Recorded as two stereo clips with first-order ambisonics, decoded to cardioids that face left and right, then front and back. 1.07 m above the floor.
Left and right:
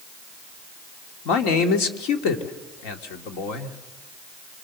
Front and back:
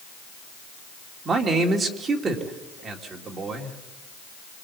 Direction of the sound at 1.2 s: 110° left.